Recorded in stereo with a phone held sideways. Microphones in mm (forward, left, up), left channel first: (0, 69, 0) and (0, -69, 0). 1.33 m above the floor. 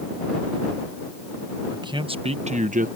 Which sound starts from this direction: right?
A man speaking, at 1.7 s.